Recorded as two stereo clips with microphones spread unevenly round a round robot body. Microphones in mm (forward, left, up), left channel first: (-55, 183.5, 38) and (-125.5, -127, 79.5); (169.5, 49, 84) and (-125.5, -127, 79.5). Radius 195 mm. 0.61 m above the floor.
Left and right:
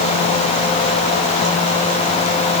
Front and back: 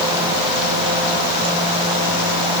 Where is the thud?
No thud in this recording.